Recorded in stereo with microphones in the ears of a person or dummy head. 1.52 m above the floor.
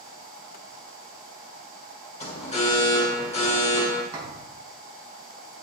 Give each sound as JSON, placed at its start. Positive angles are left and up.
{"t": 2.2, "sound": "an alarm", "side_deg": 35, "distance_m": 1.6}
{"t": 4.1, "sound": "a thud", "side_deg": -20, "distance_m": 5.0}